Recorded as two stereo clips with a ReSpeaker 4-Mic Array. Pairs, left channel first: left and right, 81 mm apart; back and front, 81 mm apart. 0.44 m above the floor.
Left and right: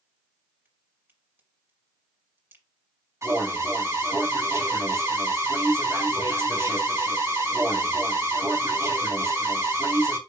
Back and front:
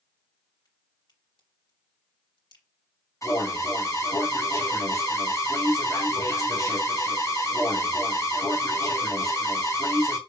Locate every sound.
0.7 s a crack: 155° right, 3 m
3.2 s an alarm: 140° right, 3 m